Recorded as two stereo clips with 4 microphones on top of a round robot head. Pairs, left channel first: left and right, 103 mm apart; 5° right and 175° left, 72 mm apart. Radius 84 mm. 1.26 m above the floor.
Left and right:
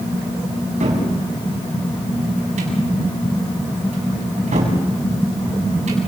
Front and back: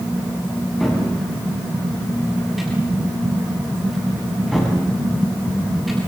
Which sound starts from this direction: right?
A cupboard door, at 0.8 s.